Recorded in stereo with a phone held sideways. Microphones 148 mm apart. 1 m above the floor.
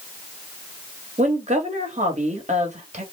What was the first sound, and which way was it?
A woman speaking, 55° right (ahead or behind).